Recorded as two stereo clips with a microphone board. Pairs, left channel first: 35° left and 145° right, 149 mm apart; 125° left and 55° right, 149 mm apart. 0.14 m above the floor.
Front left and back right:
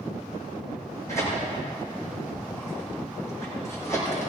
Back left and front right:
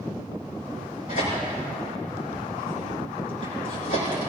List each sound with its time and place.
1.1 s tearing paper: 105° left, 6.5 m